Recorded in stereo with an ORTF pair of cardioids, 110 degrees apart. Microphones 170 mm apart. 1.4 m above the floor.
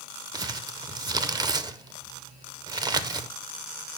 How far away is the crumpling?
About 0.6 m.